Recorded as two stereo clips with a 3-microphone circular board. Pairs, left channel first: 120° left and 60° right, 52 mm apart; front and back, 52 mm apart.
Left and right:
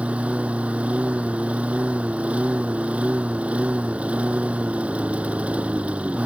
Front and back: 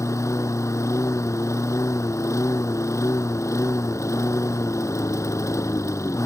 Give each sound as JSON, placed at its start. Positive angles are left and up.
{"t": 0.0, "sound": "a lawn mower", "azimuth_deg": 5}